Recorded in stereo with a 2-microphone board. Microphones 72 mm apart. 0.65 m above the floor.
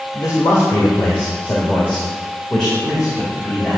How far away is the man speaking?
About 2.5 m.